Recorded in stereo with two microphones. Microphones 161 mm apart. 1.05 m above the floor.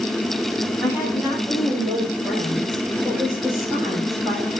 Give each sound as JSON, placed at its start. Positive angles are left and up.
{"t": 0.8, "sound": "a woman speaking", "side_deg": -5, "distance_m": 6.5}